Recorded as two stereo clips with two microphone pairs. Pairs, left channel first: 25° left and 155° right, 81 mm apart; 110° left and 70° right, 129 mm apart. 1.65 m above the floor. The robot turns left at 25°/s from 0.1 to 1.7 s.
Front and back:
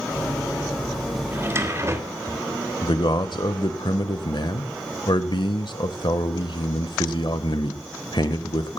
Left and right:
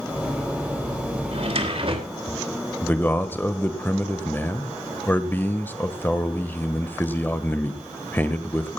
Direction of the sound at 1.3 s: 95° right.